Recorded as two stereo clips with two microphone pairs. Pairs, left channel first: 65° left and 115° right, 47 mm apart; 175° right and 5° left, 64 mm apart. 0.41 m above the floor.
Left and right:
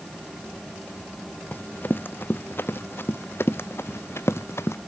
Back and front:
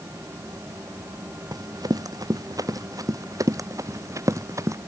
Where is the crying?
No crying in this recording.